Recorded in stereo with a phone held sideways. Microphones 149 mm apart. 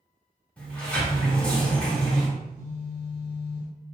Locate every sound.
0.6 s a sliding door: 10° left (ahead or behind), 0.9 m
2.4 s a phone buzzing: 10° right (ahead or behind), 0.9 m